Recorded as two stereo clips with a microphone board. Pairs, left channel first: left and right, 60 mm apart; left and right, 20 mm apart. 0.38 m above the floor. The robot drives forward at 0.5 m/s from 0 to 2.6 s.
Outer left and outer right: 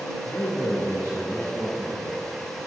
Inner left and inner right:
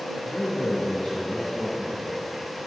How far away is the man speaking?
About 3 m.